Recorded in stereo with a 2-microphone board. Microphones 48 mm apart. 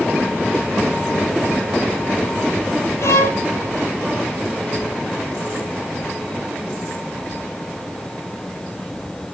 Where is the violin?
80° left, 4.5 m.